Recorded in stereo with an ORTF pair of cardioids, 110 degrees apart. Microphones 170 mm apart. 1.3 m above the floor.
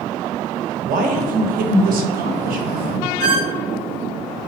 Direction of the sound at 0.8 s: 65° right.